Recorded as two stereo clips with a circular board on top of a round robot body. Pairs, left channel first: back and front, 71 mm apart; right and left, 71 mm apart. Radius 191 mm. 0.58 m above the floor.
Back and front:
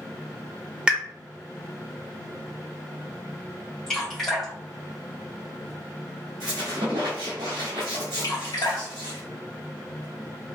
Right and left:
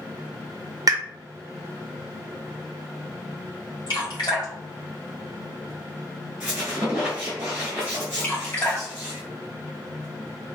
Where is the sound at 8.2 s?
150° right, 1.8 m.